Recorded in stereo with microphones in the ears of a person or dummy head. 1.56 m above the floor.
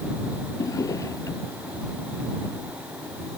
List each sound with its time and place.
0.6 s a drawer: 20° left (ahead or behind)